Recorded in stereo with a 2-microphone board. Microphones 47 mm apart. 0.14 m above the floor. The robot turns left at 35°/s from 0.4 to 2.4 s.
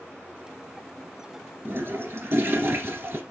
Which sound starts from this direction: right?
A toilet flushing, at 1.6 s.